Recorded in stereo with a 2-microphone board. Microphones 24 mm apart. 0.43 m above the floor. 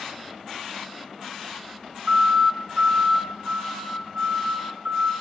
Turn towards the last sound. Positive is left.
turn(degrees=-60)  # may be behind; listen again after turning